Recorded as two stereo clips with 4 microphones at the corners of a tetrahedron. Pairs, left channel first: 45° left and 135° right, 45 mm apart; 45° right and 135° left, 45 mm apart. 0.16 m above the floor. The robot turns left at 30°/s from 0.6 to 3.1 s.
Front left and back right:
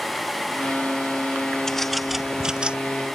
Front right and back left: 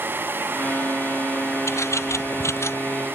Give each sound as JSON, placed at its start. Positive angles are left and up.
{"t": 1.7, "sound": "a bird", "azimuth_deg": -35}